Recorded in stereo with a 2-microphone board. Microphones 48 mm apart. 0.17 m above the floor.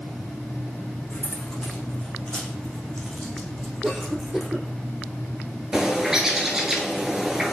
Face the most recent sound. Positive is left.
turn(degrees=-10)  # may be behind; listen again after turning